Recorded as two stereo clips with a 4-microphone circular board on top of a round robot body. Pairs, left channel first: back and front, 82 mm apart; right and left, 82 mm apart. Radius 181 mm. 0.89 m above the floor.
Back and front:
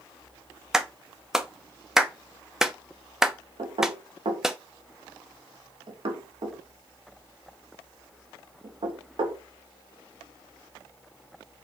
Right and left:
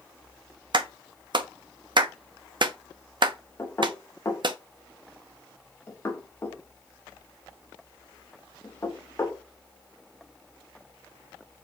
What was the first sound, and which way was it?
A clap, 85° left.